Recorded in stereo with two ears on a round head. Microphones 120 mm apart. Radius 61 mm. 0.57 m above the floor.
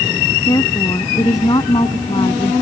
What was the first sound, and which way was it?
A woman speaking, 25° left (ahead or behind).